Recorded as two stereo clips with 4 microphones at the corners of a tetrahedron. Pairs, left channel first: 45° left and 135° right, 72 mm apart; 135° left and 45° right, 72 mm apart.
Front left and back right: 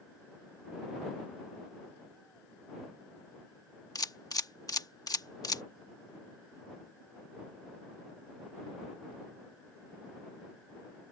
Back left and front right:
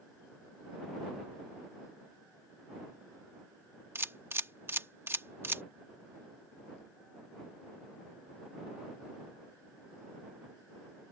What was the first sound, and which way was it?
A camera shutter, 15° left.